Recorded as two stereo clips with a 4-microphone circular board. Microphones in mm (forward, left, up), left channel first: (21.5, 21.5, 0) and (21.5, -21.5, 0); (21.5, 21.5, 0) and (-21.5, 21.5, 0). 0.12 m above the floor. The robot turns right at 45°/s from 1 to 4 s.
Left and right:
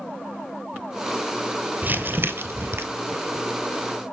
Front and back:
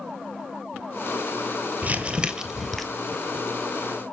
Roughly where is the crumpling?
Behind right.